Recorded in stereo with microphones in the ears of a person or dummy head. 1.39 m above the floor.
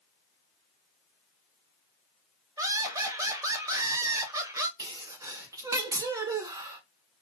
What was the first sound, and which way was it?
Laughter, 20° right (ahead or behind).